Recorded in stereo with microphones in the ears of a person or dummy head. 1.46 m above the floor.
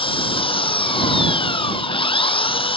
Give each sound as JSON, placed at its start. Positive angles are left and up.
{"t": 0.0, "sound": "an engine running", "side_deg": 30}